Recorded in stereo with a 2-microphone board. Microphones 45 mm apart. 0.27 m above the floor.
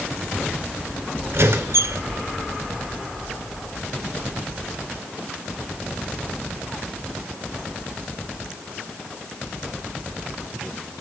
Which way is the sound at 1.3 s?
65° right (ahead or behind).